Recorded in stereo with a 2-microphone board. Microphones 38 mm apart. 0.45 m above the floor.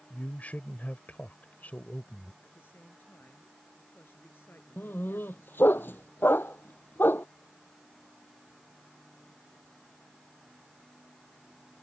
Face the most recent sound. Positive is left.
turn(degrees=70)  # may be behind; listen again after turning